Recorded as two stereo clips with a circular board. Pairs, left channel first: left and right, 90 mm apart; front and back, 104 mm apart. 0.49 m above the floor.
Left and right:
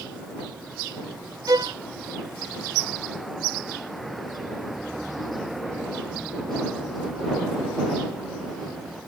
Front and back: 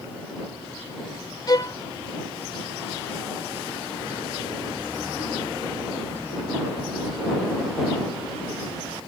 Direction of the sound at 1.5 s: 45° right.